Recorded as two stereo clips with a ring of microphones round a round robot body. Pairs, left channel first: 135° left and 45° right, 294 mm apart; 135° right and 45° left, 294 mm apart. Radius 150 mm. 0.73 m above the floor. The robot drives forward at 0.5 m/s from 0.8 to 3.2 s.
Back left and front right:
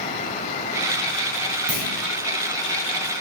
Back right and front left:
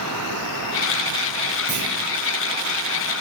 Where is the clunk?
70° right, 2.5 m.